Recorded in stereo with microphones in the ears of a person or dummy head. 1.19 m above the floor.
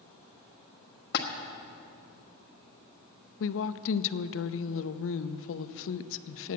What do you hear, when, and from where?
1.1 s a splash: 55° left (ahead or behind), 1.3 m
3.4 s a woman speaking: 55° left (ahead or behind), 0.5 m